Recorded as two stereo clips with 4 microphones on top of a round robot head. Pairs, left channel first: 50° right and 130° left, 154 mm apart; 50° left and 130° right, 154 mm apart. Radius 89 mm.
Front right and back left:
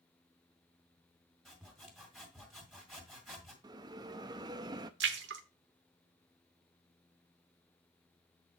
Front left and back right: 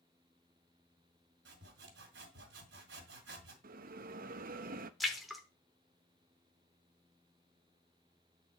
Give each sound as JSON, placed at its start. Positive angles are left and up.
{"t": 1.4, "sound": "sawing", "azimuth_deg": -140, "distance_m": 2.0}
{"t": 3.6, "sound": "a bell", "azimuth_deg": -165, "distance_m": 0.5}
{"t": 5.0, "sound": "a splash", "azimuth_deg": 140, "distance_m": 0.9}